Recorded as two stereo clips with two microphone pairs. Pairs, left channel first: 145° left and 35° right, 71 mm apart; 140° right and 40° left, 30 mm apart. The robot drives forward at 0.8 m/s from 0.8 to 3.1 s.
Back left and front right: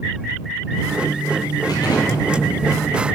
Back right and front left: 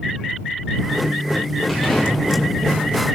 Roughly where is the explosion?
Behind left.